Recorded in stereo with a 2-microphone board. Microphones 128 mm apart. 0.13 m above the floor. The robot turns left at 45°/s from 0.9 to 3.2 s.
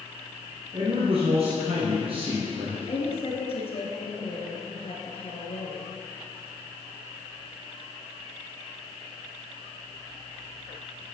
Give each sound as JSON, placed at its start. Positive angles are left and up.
{"t": 0.7, "sound": "a man speaking", "azimuth_deg": -55, "distance_m": 2.0}
{"t": 2.9, "sound": "a woman speaking", "side_deg": 50, "distance_m": 1.9}